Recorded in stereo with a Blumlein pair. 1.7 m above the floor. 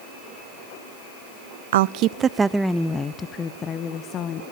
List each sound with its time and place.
1.7 s a woman speaking: 60° right, 0.5 m; by 4.4 s 30° left, 1.6 m